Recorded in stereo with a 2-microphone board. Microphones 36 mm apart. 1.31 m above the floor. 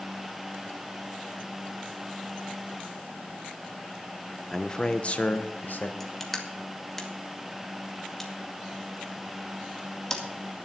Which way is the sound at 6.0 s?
15° left (ahead or behind).